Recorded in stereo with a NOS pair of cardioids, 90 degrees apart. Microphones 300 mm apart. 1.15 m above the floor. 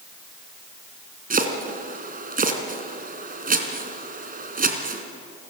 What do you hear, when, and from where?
1.3 s chopping: 30° right, 3.5 m